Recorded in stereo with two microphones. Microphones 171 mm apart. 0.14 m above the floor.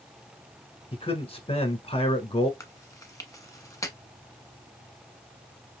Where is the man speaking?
35° left (ahead or behind), 1.2 m.